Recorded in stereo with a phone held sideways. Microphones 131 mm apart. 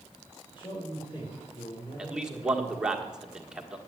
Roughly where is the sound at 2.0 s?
Centre.